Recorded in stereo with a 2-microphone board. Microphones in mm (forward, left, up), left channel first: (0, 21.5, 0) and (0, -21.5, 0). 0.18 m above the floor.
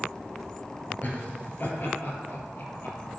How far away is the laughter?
About 2.5 m.